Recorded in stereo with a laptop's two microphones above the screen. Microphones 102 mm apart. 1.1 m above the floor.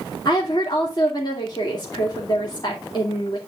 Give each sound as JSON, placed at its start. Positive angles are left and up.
{"t": 0.2, "sound": "a woman speaking", "side_deg": 45, "distance_m": 2.5}